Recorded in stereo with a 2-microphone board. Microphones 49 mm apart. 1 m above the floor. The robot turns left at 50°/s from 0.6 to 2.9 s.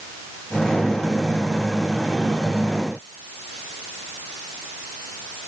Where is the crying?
No crying in this recording.